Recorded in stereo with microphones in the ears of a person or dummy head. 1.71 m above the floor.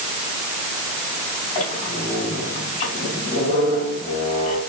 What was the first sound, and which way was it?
A squeak, 40° left (ahead or behind).